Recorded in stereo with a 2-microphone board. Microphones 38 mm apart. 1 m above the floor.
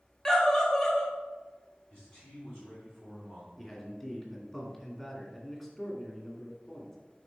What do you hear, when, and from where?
0.2 s a scream: 15° left (ahead or behind), 1.4 m
1.9 s a man speaking: 40° left (ahead or behind), 2.5 m
3.6 s a man speaking: 15° left (ahead or behind), 2.5 m